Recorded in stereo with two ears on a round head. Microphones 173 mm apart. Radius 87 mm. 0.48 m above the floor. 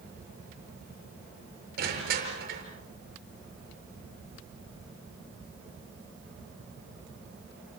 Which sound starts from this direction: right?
Crushing, at 1.8 s.